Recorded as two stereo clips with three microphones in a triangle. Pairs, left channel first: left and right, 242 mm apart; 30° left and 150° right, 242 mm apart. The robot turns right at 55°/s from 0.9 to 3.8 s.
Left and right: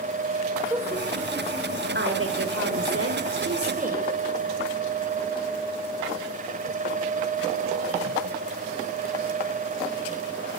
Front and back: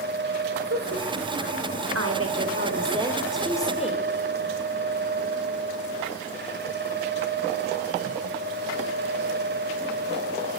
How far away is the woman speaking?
About 4.5 m.